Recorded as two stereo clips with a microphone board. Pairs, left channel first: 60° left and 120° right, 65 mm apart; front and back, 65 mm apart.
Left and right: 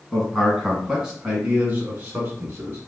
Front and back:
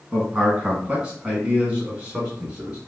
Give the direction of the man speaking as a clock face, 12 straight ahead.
7 o'clock.